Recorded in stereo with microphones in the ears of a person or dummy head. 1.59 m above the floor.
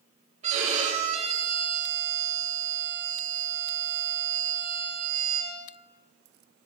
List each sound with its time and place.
0.4 s a violin: 35° right (ahead or behind), 6.5 m